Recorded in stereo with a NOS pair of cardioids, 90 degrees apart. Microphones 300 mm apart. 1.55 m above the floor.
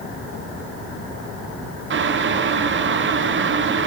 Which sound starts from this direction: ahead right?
Boiling, at 1.9 s.